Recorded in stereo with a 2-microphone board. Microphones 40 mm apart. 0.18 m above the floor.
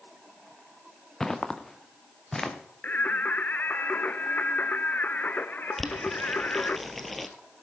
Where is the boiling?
5° left (ahead or behind), 1.2 m.